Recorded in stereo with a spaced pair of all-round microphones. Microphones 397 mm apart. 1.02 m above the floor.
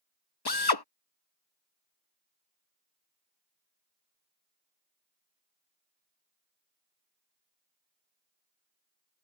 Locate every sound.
0.5 s a drill: 70° left (ahead or behind)